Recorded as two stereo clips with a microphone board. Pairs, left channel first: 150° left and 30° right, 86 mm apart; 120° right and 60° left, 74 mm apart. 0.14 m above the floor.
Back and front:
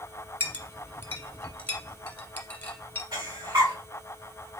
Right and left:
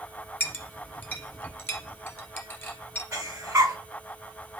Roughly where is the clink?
Behind right.